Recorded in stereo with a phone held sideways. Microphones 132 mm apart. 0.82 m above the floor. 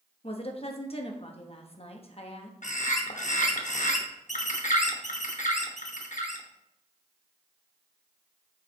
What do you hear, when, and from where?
0.2 s a woman speaking: 50° left (ahead or behind), 0.9 m
2.6 s a bird: 70° left (ahead or behind), 0.9 m